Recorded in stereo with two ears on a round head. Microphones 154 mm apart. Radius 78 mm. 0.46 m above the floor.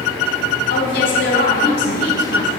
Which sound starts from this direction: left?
A woman speaking, at 0.7 s.